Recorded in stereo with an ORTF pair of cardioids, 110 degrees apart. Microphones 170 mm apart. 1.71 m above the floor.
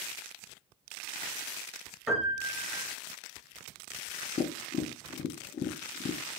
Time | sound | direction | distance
2.1 | a piano | 5° right | 3 m
4.4 | tapping | 35° left | 0.6 m